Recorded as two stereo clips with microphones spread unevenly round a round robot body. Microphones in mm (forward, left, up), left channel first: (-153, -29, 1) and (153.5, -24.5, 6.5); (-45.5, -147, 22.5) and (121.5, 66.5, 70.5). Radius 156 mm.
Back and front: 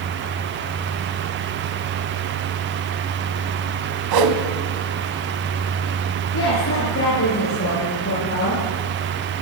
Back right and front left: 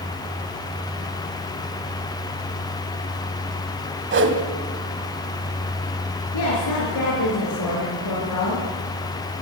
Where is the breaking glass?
I don't hear breaking glass.